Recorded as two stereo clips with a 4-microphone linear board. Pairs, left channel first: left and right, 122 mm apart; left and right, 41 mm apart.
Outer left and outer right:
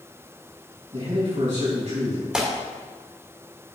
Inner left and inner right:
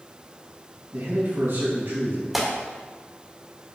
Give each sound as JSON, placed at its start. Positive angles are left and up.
{"t": 0.9, "sound": "a man speaking", "side_deg": -70, "distance_m": 4.0}
{"t": 2.3, "sound": "tearing paper", "side_deg": -5, "distance_m": 1.9}